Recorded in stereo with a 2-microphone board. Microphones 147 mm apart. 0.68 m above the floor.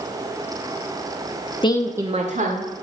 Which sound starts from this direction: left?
A woman speaking, at 1.6 s.